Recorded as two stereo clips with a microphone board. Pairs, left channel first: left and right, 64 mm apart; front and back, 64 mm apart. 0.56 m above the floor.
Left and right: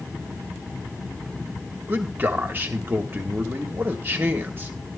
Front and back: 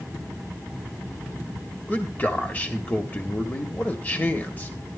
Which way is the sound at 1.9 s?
50° right.